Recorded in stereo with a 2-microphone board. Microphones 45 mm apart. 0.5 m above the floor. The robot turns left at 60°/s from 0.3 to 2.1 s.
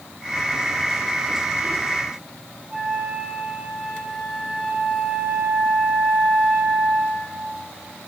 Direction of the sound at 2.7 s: 35° right (ahead or behind).